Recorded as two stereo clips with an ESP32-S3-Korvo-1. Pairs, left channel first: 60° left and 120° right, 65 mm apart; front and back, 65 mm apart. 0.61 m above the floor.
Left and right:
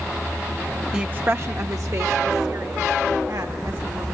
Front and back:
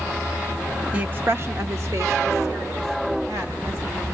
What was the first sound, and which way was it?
A woman speaking, straight behind.